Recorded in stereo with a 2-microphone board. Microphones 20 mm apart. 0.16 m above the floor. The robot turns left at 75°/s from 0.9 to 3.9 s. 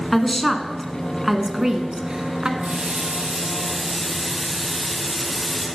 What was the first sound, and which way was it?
A woman speaking, 10° left (ahead or behind).